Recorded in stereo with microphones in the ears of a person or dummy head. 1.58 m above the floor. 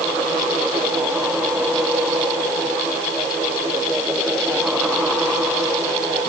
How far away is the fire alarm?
I don't hear a fire alarm.